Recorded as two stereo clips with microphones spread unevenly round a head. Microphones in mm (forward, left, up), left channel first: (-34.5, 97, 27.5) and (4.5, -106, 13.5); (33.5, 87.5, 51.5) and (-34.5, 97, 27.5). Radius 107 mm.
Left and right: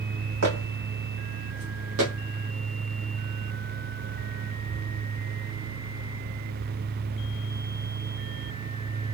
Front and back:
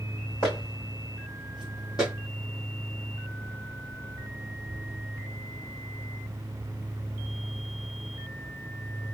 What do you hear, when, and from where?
0.4 s footsteps: 60° right, 3.5 m; by 2.1 s 55° right, 2 m